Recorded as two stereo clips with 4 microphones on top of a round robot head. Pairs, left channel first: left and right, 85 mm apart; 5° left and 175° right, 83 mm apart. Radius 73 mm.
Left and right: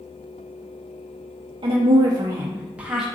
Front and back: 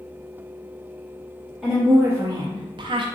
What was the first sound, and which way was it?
A woman speaking, 90° right.